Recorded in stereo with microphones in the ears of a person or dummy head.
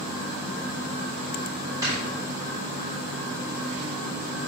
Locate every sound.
1.8 s snoring: 10° right (ahead or behind), 3.5 m